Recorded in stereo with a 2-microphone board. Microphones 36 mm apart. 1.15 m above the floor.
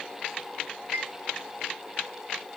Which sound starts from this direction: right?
A chime, at 0.9 s.